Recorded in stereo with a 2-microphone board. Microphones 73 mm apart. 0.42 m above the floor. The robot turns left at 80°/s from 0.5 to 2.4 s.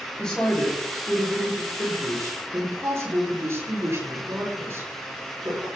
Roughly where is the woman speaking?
Ahead.